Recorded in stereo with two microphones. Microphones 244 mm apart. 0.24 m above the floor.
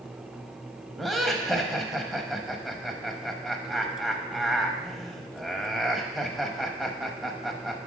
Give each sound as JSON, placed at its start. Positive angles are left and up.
{"t": 1.0, "sound": "laughter", "side_deg": 0, "distance_m": 0.9}